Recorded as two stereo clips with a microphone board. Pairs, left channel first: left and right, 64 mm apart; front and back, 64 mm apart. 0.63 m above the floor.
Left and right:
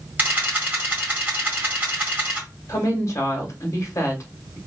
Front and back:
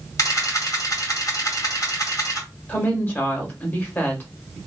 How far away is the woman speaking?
About 1.7 m.